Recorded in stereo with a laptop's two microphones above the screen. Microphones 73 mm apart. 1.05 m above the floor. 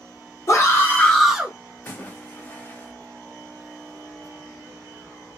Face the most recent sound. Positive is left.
turn(degrees=25)  # may be behind; listen again after turning